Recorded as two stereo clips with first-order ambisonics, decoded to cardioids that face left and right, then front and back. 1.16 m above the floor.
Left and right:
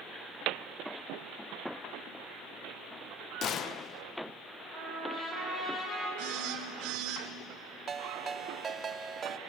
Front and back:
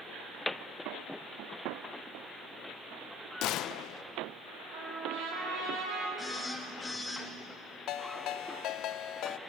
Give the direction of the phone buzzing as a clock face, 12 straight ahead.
3 o'clock.